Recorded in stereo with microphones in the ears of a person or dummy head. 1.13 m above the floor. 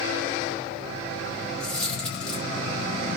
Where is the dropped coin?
5° left (ahead or behind), 0.8 m.